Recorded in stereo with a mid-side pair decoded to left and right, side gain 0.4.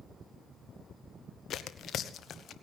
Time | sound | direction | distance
1.5 | tearing paper | 65° left | 1.0 m